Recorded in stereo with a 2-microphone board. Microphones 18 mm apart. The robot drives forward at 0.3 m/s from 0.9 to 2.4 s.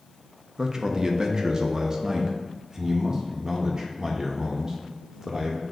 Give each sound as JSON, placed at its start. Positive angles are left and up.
{"t": 0.6, "sound": "a man speaking", "side_deg": -35, "distance_m": 0.5}